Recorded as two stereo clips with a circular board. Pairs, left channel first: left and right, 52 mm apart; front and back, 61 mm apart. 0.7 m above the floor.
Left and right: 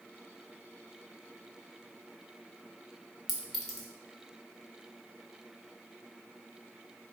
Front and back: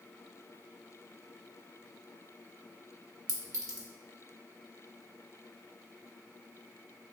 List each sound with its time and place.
3.3 s a clink: 175° left, 1.0 m